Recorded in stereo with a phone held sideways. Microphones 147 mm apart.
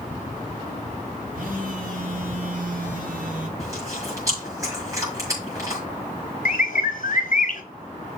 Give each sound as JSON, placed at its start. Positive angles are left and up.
{"t": 1.3, "sound": "a phone buzzing", "side_deg": -70, "distance_m": 2.5}
{"t": 3.6, "sound": "chewing", "side_deg": -20, "distance_m": 6.5}
{"t": 6.5, "sound": "a bird", "side_deg": 60, "distance_m": 1.3}